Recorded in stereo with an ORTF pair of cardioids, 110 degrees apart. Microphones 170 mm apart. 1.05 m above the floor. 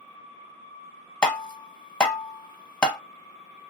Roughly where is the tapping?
Ahead.